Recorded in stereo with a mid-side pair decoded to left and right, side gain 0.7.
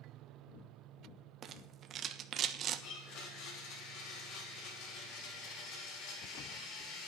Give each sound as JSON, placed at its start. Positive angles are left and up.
{"t": 1.4, "sound": "a rattle", "azimuth_deg": -40, "distance_m": 1.2}
{"t": 2.8, "sound": "a blender", "azimuth_deg": 65, "distance_m": 5.5}